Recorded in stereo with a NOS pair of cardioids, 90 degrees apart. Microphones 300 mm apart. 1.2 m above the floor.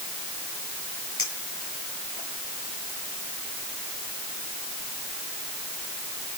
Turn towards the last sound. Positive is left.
turn(degrees=45)